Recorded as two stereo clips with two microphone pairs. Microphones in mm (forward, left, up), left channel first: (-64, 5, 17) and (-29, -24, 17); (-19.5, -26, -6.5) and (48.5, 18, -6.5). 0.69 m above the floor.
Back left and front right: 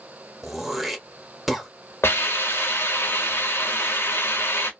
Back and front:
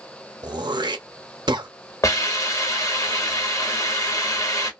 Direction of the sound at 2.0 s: 165° left.